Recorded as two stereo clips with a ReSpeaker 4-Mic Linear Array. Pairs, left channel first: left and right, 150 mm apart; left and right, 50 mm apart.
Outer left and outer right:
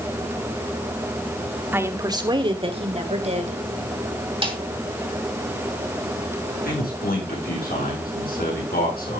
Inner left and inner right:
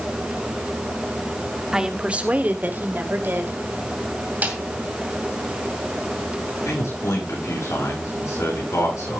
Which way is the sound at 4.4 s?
35° right (ahead or behind).